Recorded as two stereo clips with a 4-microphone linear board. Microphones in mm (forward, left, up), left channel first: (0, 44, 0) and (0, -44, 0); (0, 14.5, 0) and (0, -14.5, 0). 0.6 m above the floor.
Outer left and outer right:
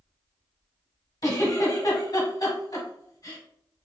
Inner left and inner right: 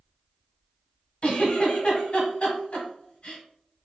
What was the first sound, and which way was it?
A giggle, 50° left (ahead or behind).